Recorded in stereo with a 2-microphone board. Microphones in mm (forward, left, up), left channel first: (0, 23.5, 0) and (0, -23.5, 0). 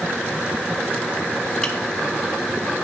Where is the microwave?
15° left (ahead or behind), 0.8 m.